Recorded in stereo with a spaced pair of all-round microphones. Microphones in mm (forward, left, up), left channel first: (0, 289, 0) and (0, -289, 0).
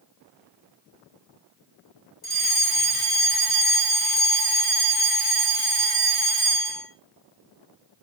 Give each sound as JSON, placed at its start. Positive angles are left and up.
{"t": 2.2, "sound": "a fire alarm", "side_deg": 40, "distance_m": 5.0}